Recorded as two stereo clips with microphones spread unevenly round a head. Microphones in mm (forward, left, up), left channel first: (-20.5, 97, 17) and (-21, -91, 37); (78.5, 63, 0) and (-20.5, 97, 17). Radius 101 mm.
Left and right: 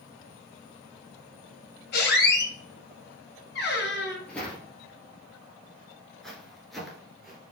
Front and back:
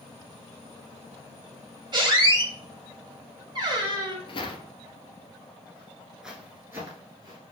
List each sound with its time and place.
1.9 s a squeak: 125° left, 1.6 m
4.3 s footsteps: straight ahead, 1.5 m; by 7.4 s 175° right, 1.6 m